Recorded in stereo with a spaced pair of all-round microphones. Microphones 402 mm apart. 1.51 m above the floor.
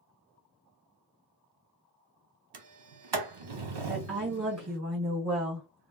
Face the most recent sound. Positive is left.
turn(degrees=-35)  # may be behind; listen again after turning